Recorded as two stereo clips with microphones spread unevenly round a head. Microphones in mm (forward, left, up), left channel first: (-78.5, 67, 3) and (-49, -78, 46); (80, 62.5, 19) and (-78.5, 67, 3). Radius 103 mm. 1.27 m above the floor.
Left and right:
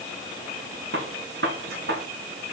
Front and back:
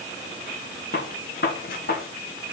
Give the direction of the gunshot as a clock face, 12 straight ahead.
2 o'clock.